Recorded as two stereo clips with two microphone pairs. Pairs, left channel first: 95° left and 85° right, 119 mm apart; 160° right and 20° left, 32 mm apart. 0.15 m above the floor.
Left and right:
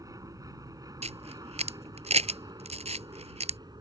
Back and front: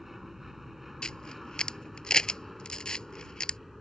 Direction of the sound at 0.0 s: 60° right.